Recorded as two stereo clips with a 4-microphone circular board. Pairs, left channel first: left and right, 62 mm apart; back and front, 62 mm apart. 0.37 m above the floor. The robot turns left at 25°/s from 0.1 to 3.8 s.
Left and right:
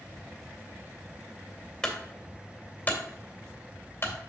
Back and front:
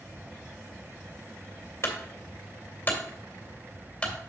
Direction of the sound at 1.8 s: 160° left.